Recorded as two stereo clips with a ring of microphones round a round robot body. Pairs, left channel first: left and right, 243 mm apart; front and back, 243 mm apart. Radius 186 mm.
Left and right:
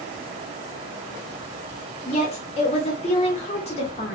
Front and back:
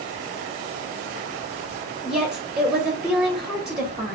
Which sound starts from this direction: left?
A woman speaking, at 2.0 s.